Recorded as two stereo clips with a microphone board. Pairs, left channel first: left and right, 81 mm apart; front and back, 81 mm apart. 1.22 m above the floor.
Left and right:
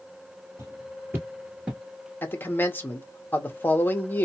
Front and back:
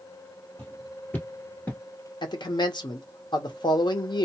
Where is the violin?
No violin in this recording.